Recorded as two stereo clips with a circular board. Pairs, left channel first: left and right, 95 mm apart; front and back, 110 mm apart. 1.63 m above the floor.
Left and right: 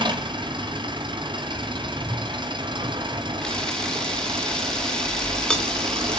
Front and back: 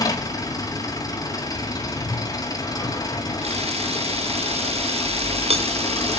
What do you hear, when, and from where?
0.0 s an engine running: 55° right, 4 m
3.4 s a camera shutter: 170° left, 3 m